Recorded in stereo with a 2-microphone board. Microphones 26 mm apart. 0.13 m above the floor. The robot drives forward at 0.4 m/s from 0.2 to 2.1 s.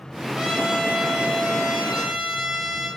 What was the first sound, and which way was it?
A trumpet, 25° right (ahead or behind).